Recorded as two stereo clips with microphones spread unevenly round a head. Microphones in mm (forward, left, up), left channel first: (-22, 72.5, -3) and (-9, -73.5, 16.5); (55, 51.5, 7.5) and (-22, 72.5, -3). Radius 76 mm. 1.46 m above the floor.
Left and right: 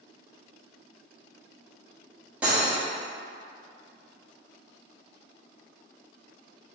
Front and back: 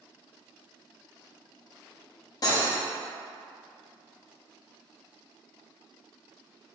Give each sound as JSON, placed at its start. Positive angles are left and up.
{"t": 2.4, "sound": "cutlery clinking", "azimuth_deg": -10, "distance_m": 1.1}